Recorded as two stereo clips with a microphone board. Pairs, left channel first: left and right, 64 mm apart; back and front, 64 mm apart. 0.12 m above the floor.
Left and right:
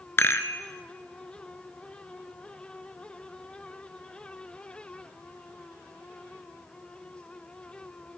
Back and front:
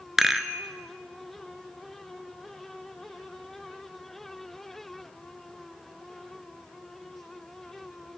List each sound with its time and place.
0.2 s a rattle: 80° left, 0.6 m